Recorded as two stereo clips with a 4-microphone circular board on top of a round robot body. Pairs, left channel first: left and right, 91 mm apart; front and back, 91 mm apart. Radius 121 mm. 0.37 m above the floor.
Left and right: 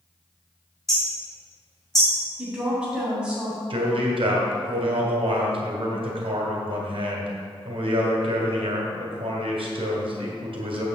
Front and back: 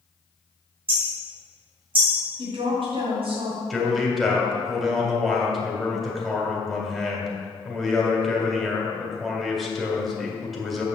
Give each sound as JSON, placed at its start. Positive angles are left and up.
{"t": 0.9, "sound": "hammering", "azimuth_deg": 175, "distance_m": 3.0}
{"t": 2.4, "sound": "a woman speaking", "azimuth_deg": -170, "distance_m": 3.0}
{"t": 3.7, "sound": "a man speaking", "azimuth_deg": -90, "distance_m": 2.0}